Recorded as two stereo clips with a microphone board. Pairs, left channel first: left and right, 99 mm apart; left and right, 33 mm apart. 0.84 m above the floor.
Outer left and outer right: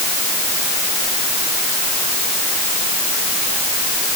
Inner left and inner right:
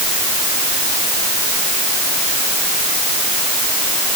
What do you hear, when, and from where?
Only background noise.